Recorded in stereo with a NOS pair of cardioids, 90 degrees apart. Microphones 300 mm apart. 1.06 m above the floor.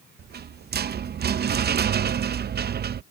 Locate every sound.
0.2 s a rattle: 35° right